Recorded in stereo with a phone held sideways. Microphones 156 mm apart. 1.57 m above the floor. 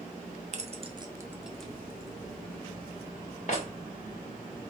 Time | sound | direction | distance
0.5 | keys jangling | 50° right (ahead or behind) | 0.7 m